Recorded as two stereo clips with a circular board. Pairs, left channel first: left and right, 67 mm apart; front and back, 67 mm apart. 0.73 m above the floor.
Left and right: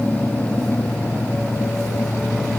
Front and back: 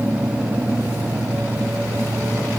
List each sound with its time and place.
Only background noise.